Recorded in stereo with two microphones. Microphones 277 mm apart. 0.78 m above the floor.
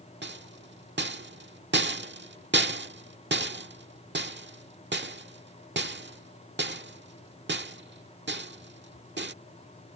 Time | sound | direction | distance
0.2 | a rattle | 40° right (ahead or behind) | ?